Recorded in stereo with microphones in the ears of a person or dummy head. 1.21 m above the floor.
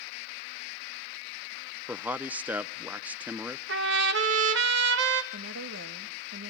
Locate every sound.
1.9 s a man speaking: 10° right (ahead or behind), 0.6 m
3.7 s a trumpet: 70° right (ahead or behind), 1.4 m
5.3 s a woman speaking: 80° right, 1.5 m